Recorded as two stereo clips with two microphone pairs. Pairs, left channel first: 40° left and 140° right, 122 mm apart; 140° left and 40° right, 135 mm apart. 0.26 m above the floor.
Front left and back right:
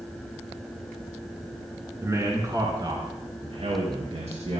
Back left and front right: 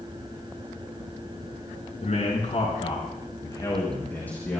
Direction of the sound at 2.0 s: 160° left.